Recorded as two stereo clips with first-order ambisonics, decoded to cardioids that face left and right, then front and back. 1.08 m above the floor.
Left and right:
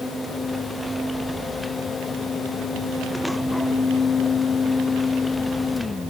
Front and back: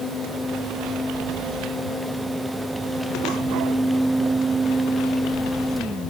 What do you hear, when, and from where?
Only background noise.